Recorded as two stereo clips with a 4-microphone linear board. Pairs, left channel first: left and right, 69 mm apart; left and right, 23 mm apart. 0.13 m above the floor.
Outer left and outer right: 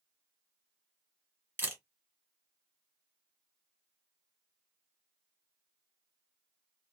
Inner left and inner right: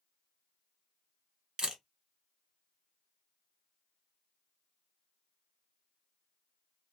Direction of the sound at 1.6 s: 25° right (ahead or behind).